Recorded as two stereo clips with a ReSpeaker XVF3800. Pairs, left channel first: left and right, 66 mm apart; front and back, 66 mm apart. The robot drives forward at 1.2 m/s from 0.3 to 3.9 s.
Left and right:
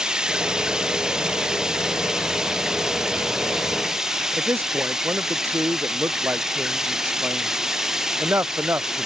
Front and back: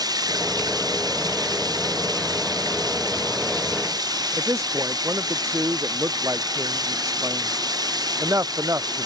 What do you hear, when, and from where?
0.0 s running water: 165° right; by 9.1 s 170° right
4.4 s a man speaking: 140° right